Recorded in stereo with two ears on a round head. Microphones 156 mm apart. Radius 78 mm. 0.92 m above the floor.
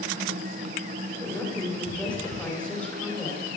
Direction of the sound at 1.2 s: 10° left (ahead or behind).